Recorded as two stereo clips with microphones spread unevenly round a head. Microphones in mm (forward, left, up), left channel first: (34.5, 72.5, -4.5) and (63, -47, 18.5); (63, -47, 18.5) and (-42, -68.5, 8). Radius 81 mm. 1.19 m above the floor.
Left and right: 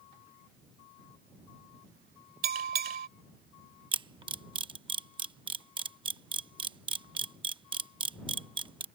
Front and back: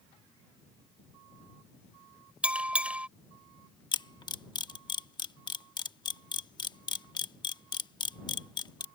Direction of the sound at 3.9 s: 35° right.